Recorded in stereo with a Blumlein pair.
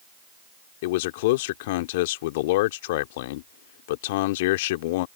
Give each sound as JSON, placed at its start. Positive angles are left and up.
{"t": 0.8, "sound": "a man speaking", "azimuth_deg": 50}